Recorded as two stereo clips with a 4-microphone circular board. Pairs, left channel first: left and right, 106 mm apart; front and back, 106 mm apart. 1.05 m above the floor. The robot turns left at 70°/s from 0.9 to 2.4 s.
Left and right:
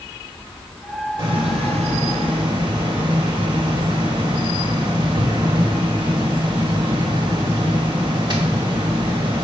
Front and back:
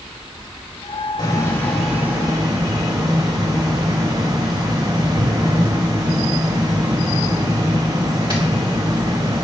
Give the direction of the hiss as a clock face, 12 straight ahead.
2 o'clock.